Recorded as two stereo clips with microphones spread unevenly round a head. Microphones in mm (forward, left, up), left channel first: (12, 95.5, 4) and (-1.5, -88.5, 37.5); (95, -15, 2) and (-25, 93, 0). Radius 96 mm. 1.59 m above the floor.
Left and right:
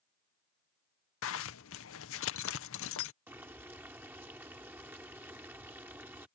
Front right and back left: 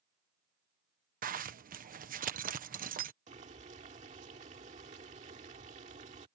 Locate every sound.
1.2 s a zipper: 100° left
3.3 s boiling: 170° right